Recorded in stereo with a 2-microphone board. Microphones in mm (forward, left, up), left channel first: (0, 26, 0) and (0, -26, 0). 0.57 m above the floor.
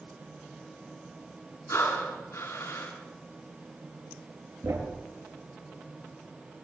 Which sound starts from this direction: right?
A thud, at 4.6 s.